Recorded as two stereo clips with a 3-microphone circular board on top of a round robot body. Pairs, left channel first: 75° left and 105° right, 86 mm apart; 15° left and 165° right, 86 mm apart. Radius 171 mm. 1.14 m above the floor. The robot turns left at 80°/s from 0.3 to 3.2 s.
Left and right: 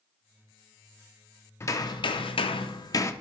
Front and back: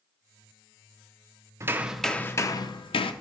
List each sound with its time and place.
1.6 s hammering: 135° left, 0.6 m; by 3.1 s 15° left, 0.6 m